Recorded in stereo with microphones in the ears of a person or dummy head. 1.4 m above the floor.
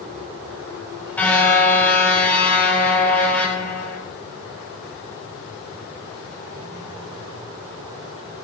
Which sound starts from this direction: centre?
A car horn, at 1.2 s.